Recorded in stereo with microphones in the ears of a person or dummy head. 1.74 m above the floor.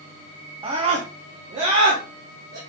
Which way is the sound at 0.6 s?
30° right (ahead or behind).